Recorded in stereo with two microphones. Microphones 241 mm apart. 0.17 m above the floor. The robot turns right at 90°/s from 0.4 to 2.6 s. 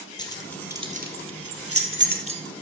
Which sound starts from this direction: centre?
Keys jangling, at 0.2 s.